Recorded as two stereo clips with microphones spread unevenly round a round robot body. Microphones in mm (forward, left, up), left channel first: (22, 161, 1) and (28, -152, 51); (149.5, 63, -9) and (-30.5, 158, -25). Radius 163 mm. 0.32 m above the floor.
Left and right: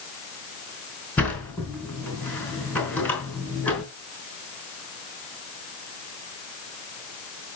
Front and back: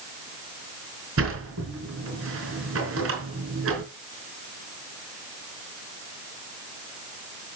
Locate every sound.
1.2 s a sliding door: 175° left, 4 m